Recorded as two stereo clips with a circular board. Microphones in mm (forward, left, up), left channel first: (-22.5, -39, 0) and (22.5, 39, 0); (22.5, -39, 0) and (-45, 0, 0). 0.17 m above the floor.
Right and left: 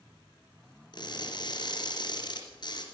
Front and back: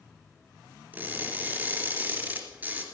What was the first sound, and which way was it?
Crushing, 145° right.